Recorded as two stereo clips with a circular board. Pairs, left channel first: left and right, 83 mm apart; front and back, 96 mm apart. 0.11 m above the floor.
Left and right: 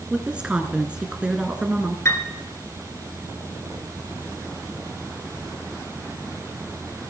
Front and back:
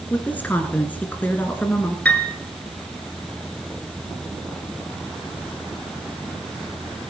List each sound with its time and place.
0.1 s a woman speaking: 35° right, 1.5 m
2.0 s a piano: 65° left, 1.8 m